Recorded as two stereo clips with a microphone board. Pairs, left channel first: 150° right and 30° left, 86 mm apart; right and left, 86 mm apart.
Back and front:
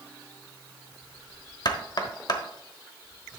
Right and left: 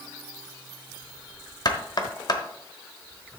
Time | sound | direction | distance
1.6 | knocking | 120° right | 1.0 m